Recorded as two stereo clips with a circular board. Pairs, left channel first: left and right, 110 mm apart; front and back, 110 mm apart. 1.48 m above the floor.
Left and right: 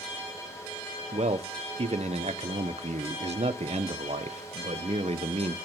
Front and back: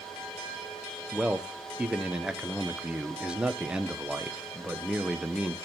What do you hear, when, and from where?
1.1 s a man speaking: 100° right, 0.8 m